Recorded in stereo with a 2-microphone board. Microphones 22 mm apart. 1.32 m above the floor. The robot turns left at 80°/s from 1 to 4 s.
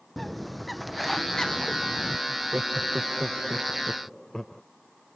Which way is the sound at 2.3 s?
60° right.